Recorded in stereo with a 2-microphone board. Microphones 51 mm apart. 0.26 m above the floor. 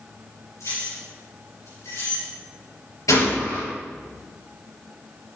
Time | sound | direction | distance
0.6 | keys jangling | 65° left (ahead or behind) | 3.5 m
3.1 | a gunshot | 80° left | 3 m